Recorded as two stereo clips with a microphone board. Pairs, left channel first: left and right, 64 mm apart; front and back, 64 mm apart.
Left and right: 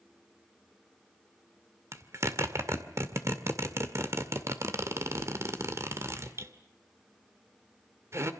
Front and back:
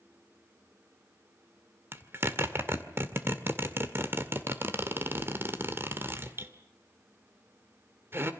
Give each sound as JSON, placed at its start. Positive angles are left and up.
{"t": 1.9, "sound": "a zipper", "azimuth_deg": -130, "distance_m": 2.0}